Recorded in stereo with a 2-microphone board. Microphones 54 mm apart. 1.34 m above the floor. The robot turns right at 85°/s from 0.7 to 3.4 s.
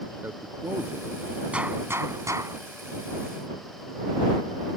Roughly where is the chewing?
No chewing in this recording.